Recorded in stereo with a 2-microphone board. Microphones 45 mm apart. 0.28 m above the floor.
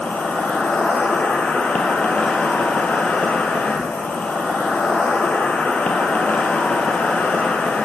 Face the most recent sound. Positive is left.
turn(degrees=35)  # may be behind; listen again after turning